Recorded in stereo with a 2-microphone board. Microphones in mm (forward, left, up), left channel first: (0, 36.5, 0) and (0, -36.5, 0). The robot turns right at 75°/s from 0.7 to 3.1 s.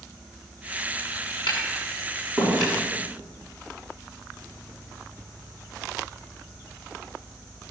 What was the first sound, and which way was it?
Tapping, 85° left.